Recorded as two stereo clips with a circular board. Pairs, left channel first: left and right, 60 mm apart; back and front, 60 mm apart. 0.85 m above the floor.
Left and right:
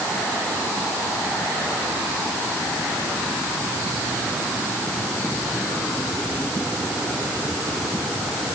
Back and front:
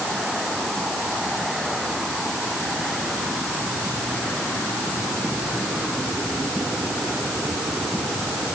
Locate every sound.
Only background noise.